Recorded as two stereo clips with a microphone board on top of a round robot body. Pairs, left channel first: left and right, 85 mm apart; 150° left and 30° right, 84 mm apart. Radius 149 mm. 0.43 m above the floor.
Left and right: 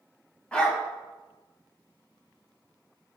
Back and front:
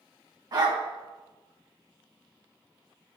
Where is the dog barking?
10° left, 1.6 m.